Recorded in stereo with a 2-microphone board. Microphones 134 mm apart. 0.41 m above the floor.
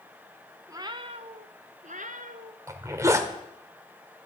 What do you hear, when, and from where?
0.7 s a cat meowing: 25° right (ahead or behind), 0.9 m; by 2.6 s 85° right, 1.6 m
2.7 s a zipper: 25° right (ahead or behind), 1.5 m